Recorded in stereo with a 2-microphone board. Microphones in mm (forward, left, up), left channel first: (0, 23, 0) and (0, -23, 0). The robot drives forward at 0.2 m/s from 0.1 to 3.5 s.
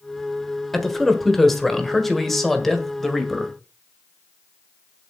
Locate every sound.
0.7 s a man speaking: 5° left (ahead or behind), 1.5 m